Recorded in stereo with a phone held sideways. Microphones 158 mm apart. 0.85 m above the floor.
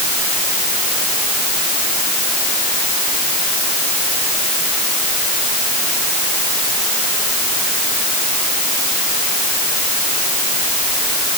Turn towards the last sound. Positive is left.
No sound to turn to.